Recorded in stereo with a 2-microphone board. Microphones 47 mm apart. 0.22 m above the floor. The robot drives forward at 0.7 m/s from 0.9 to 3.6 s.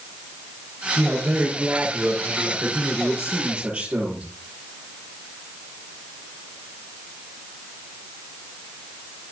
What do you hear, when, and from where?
1.0 s a man speaking: 40° right (ahead or behind), 4.5 m; by 4.2 s 30° right (ahead or behind), 6 m